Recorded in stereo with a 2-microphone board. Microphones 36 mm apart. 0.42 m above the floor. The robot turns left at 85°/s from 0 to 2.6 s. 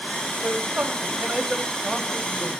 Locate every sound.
0.4 s a man speaking: 70° right, 2.5 m; by 2.6 s 105° left, 2.5 m